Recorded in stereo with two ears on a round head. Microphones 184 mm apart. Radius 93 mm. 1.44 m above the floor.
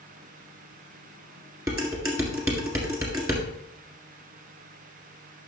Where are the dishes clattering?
15° right (ahead or behind), 1.8 m.